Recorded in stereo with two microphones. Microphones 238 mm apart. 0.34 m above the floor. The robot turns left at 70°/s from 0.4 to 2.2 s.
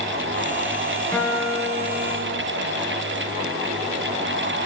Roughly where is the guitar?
Ahead.